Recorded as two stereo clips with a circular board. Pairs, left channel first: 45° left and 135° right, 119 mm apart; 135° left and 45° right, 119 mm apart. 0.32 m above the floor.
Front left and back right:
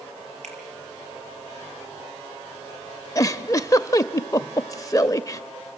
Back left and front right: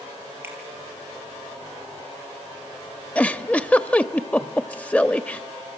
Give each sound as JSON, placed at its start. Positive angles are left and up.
{"t": 0.4, "sound": "a finger snap", "azimuth_deg": -120, "distance_m": 5.0}
{"t": 3.1, "sound": "a giggle", "azimuth_deg": 70, "distance_m": 0.6}